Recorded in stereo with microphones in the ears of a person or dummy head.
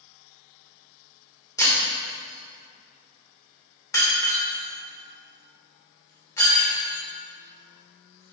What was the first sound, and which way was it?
Breaking glass, 15° left (ahead or behind).